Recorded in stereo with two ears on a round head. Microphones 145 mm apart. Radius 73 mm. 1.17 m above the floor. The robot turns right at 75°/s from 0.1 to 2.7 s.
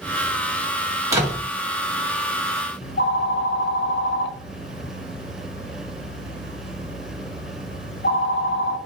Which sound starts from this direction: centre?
A door slam, at 1.1 s.